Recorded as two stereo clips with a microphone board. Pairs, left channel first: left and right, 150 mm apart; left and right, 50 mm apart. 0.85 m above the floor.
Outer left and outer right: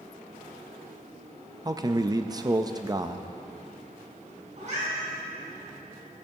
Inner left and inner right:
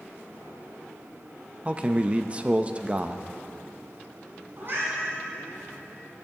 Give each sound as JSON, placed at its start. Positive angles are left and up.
{"t": 1.6, "sound": "a man speaking", "side_deg": -25, "distance_m": 0.5}
{"t": 4.6, "sound": "a cat meowing", "side_deg": -55, "distance_m": 3.5}